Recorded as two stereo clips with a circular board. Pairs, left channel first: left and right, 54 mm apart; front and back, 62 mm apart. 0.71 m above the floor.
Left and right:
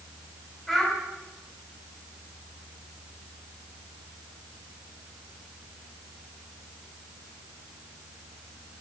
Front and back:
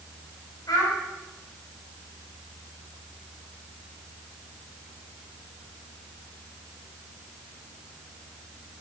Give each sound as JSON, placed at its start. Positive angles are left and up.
{"t": 0.7, "sound": "a child speaking", "azimuth_deg": 5, "distance_m": 3.0}